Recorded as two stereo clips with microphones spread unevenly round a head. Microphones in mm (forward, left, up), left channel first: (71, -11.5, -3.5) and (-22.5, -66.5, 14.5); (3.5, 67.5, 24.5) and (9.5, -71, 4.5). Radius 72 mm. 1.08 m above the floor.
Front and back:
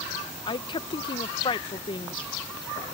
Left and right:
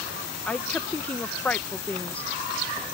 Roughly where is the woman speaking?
Ahead.